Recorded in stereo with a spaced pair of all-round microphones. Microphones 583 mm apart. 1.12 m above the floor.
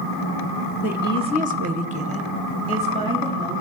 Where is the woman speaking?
5° right (ahead or behind), 1.0 m; by 3.6 s 10° right (ahead or behind), 3.5 m.